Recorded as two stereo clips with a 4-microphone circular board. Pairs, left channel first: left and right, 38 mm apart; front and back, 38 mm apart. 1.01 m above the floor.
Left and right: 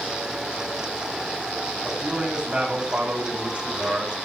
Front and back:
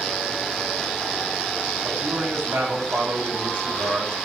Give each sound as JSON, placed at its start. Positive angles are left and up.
{"t": 1.8, "sound": "a man speaking", "azimuth_deg": -165, "distance_m": 8.0}